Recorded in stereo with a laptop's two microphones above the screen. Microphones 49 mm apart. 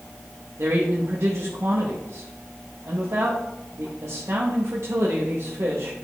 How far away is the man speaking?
About 1.2 m.